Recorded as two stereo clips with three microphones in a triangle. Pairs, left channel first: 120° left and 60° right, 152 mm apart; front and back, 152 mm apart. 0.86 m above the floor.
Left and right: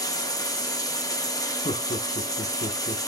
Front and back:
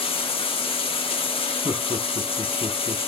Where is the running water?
55° left, 0.9 m.